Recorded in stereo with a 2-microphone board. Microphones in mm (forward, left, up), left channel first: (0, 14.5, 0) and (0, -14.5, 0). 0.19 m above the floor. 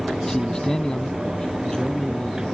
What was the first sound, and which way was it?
A man speaking, 20° left (ahead or behind).